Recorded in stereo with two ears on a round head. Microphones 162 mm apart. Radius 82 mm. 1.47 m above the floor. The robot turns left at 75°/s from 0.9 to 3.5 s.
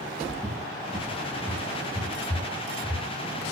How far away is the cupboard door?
About 8.5 m.